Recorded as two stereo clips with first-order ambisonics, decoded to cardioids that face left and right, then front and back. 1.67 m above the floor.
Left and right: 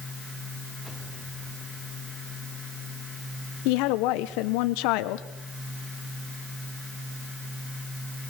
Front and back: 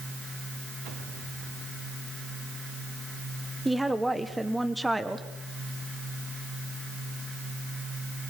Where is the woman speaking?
95° left, 1.0 m.